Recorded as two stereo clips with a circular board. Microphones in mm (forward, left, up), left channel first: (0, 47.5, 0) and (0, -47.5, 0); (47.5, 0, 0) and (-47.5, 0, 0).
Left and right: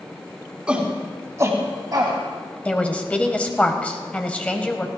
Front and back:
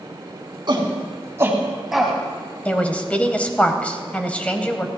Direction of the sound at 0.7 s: 165° right.